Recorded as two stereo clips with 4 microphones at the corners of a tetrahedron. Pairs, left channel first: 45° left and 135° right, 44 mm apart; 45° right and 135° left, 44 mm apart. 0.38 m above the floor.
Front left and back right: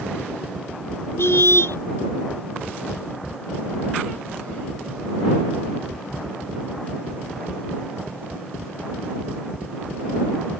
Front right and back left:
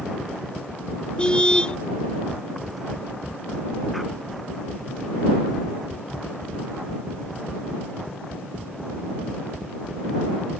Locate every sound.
1.2 s a car horn: 20° left